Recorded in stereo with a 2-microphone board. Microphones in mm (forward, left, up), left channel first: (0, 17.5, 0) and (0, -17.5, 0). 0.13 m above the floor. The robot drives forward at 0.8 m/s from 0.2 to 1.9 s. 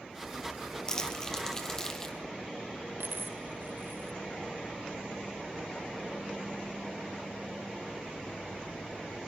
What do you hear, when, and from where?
0.9 s crumpling: 25° left (ahead or behind), 1.7 m; by 2.2 s 15° left (ahead or behind), 2.5 m
3.0 s a dropped coin: 85° right, 0.7 m